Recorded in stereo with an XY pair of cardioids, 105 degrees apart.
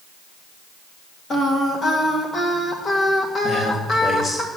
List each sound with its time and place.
1.3 s singing: 35° left, 2 m
3.4 s a man speaking: 30° left, 3 m